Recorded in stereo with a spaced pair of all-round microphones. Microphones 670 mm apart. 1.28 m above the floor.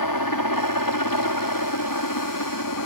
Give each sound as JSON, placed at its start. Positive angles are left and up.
{"t": 0.0, "sound": "a helicopter", "side_deg": 30}